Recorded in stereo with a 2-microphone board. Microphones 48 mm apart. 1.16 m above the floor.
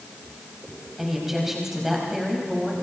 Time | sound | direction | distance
1.0 | a woman speaking | 10° right (ahead or behind) | 6 m